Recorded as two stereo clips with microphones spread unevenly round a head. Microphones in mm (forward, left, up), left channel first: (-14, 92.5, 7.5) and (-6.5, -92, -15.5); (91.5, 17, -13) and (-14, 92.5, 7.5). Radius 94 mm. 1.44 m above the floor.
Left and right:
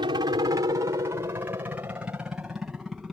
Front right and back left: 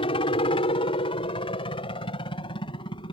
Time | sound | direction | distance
0.0 | a helicopter | 35° right | ?